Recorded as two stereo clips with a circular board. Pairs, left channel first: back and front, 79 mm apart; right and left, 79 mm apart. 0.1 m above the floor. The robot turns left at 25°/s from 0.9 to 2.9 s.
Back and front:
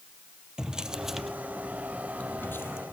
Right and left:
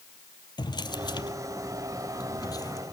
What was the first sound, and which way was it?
A drawer, 80° right.